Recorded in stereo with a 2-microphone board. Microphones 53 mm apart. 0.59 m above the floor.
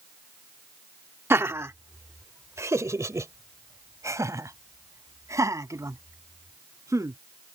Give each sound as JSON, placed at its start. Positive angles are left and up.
{"t": 1.3, "sound": "laughter", "side_deg": -50}